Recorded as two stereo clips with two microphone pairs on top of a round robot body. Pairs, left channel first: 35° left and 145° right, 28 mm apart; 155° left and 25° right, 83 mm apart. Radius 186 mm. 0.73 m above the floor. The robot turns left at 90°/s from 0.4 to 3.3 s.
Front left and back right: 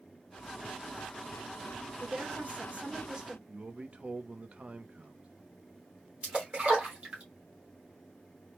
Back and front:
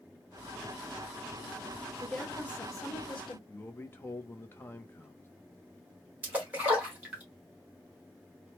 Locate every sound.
2.0 s a woman speaking: 95° right, 1.2 m; by 3.4 s 150° left, 1.2 m
3.5 s a man speaking: 140° right, 0.8 m
6.2 s a splash: 100° right, 1.3 m